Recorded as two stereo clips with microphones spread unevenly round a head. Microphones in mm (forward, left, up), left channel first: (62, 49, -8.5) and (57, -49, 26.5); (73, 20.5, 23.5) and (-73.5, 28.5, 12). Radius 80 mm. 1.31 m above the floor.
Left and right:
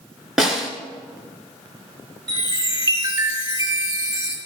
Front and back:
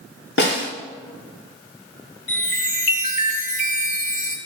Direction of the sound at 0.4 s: 15° right.